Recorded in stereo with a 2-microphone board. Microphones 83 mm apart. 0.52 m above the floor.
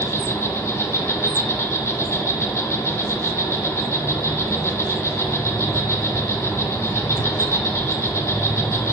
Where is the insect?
30° left (ahead or behind), 0.9 m.